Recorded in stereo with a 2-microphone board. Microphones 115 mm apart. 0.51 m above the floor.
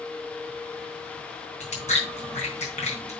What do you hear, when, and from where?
1.6 s chewing: 75° left (ahead or behind), 3.5 m